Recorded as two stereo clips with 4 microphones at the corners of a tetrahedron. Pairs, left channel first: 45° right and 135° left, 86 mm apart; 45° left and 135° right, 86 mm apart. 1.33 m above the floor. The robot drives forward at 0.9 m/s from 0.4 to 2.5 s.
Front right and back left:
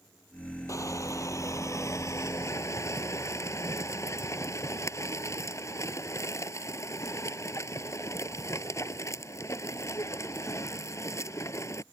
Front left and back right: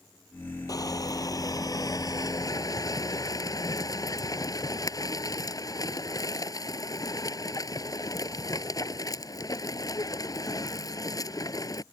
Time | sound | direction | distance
0.7 | crushing | 5° left | ?